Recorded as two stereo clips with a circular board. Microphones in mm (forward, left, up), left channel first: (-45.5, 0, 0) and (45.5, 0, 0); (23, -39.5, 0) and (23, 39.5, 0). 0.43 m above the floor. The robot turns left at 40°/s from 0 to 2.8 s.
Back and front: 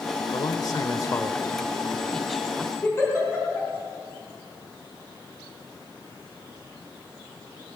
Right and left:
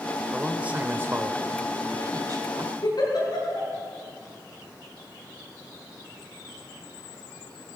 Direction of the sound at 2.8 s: 125° right.